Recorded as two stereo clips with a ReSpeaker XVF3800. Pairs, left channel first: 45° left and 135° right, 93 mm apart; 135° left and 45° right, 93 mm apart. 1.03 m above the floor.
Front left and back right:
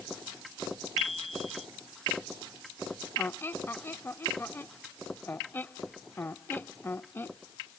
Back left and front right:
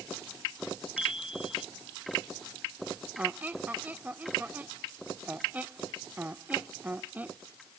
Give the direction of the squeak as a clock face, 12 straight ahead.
12 o'clock.